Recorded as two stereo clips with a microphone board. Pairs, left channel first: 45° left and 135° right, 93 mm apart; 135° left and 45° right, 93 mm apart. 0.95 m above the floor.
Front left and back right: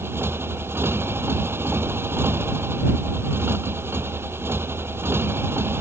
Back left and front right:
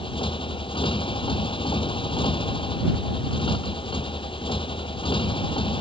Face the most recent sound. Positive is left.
turn(degrees=160)